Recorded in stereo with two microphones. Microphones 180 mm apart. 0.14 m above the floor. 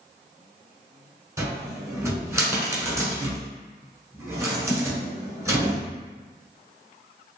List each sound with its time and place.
1.4 s a cupboard door: 15° right (ahead or behind), 1.2 m